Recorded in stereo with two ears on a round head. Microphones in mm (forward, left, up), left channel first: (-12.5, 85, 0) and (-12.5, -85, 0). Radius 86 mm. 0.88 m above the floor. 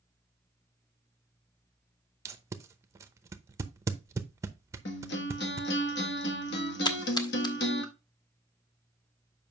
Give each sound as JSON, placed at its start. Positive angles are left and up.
{"t": 2.2, "sound": "tape being pulled", "side_deg": -15, "distance_m": 0.7}
{"t": 4.8, "sound": "a guitar", "side_deg": 60, "distance_m": 1.5}
{"t": 6.8, "sound": "a splash", "side_deg": 25, "distance_m": 1.0}